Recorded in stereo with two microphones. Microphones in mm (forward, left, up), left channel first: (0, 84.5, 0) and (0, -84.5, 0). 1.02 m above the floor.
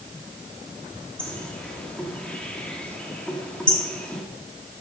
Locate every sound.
1.2 s a bird: 5° left (ahead or behind), 1.7 m